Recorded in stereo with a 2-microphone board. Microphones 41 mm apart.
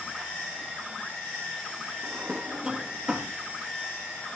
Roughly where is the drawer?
Right.